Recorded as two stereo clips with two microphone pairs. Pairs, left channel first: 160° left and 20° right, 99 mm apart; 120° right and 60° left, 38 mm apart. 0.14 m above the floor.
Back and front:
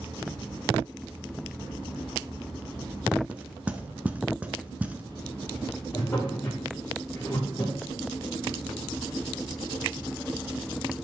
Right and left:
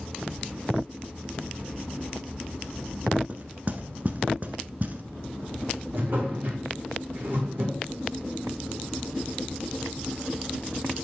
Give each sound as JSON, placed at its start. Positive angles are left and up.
{"t": 3.3, "sound": "knocking", "azimuth_deg": 45, "distance_m": 1.0}
{"t": 5.9, "sound": "a drawer", "azimuth_deg": 95, "distance_m": 3.5}